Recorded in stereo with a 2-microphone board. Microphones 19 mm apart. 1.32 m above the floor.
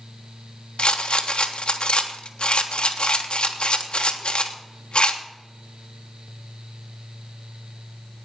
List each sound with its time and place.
0.8 s a rattle: 75° left (ahead or behind), 1.4 m